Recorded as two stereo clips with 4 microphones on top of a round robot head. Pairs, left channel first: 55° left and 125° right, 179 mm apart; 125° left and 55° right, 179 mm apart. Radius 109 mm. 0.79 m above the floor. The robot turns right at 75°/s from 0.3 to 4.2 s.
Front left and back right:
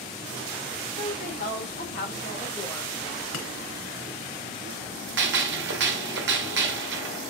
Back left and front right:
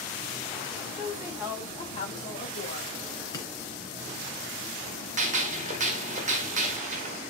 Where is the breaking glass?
55° left, 2.5 m; by 3.5 s 65° left, 2.5 m.